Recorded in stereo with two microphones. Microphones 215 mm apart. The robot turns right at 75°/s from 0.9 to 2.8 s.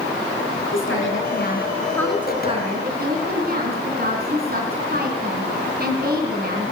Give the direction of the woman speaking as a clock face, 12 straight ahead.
9 o'clock.